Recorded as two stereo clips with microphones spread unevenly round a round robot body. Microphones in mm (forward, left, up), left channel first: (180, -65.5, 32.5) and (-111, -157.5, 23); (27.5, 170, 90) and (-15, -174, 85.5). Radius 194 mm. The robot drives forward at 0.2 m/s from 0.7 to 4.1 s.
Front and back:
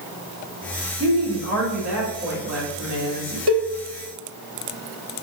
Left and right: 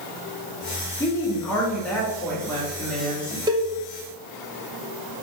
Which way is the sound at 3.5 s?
170° right.